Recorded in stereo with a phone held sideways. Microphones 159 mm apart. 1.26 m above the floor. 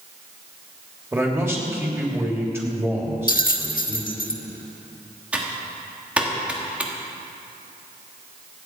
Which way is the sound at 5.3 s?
5° right (ahead or behind).